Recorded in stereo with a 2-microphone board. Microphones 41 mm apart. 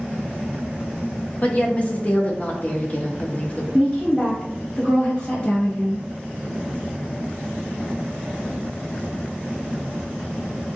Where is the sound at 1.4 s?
35° left (ahead or behind), 0.6 m.